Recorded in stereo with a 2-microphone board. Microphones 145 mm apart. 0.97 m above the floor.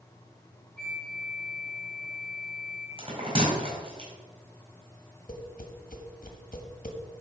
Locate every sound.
0.8 s a flute: 5° left (ahead or behind), 2.5 m
3.0 s a bell: 35° right (ahead or behind), 4.5 m
5.3 s tapping: 70° left (ahead or behind), 1.4 m